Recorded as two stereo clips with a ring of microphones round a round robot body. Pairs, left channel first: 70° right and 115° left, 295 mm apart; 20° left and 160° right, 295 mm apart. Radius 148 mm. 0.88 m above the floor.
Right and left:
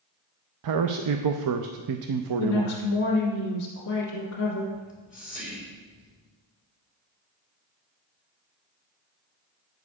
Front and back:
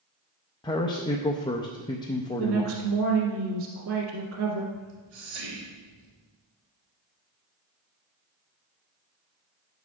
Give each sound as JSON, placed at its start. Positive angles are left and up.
{"t": 0.6, "sound": "a man speaking", "azimuth_deg": 100, "distance_m": 0.6}
{"t": 2.4, "sound": "a woman speaking", "azimuth_deg": -110, "distance_m": 1.8}
{"t": 4.7, "sound": "whispering", "azimuth_deg": -175, "distance_m": 2.5}